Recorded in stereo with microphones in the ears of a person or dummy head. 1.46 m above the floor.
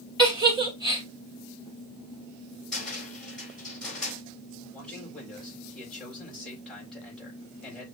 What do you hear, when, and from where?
0.2 s a giggle: 20° right (ahead or behind), 1.8 m
2.7 s a cupboard door: 5° left (ahead or behind), 4.5 m
4.7 s a man speaking: 5° left (ahead or behind), 4 m